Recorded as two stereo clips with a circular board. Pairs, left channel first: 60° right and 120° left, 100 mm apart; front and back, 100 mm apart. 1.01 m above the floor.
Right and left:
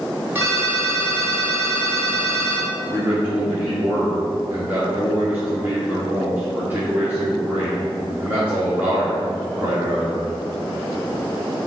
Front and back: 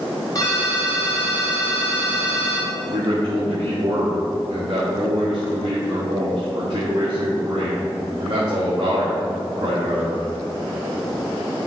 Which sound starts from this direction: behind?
A man speaking, at 2.9 s.